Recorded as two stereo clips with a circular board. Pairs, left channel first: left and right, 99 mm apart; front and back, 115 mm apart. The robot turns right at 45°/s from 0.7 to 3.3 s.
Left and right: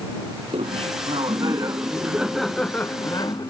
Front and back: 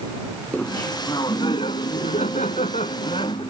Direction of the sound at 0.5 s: 75° right.